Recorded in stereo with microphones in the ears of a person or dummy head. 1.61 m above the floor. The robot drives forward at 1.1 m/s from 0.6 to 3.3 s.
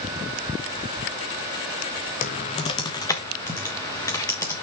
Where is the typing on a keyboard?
40° left (ahead or behind), 0.8 m; by 4.6 s 20° left (ahead or behind), 1.6 m.